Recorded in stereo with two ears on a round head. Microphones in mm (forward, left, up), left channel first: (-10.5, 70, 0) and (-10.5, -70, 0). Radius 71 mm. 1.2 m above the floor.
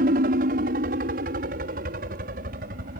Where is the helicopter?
60° right (ahead or behind).